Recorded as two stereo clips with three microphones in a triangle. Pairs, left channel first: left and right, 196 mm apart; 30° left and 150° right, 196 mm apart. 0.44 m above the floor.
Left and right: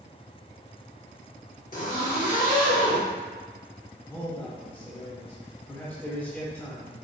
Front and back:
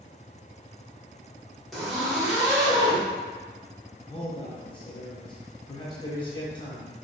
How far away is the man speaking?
About 0.8 m.